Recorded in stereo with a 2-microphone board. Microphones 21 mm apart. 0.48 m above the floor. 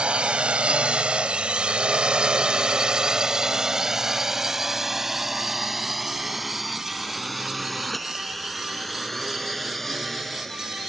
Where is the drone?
65° right (ahead or behind); by 10.9 s 15° left (ahead or behind).